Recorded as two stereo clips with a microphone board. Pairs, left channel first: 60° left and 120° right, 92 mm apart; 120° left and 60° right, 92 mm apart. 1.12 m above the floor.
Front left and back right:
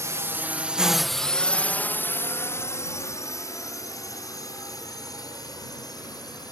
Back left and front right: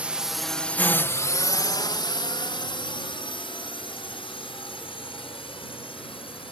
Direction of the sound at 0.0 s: 125° right.